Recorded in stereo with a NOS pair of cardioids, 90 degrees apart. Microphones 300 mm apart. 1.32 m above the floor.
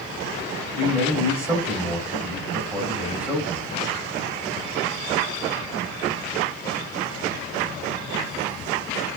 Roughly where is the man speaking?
Ahead.